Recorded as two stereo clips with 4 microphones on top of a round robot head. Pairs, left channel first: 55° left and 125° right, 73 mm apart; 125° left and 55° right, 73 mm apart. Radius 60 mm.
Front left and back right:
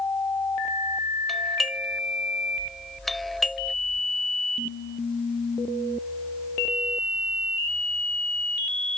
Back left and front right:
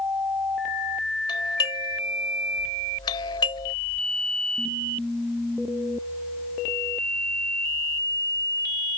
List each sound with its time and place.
1.3 s a doorbell: 145° left